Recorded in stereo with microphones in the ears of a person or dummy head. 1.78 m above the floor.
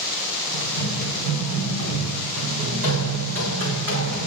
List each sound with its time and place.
0.5 s running footsteps: 40° right (ahead or behind), 7.5 m; by 4.3 s 50° right (ahead or behind), 6.5 m